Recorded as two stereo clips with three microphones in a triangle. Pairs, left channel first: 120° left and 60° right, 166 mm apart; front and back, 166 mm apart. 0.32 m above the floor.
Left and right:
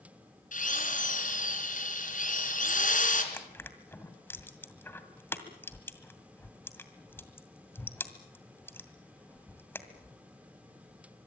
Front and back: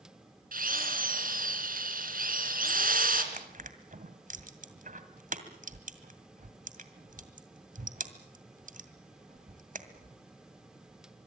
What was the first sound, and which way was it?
A drill, 155° left.